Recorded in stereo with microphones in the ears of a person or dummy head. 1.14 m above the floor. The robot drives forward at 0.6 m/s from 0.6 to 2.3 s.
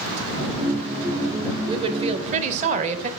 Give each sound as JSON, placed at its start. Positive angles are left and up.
{"t": 1.7, "sound": "a woman speaking", "side_deg": -25, "distance_m": 1.0}